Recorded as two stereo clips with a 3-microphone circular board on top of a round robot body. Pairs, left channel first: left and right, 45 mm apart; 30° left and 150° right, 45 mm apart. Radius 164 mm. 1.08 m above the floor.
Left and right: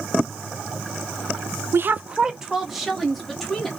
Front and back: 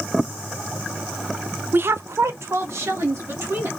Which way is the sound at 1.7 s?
110° right.